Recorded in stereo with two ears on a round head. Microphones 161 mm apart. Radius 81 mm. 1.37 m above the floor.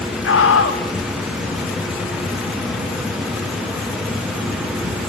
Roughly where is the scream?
Left.